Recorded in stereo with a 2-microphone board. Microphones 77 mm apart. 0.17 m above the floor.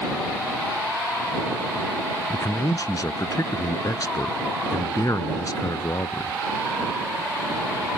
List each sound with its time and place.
2.3 s a man speaking: 50° left (ahead or behind)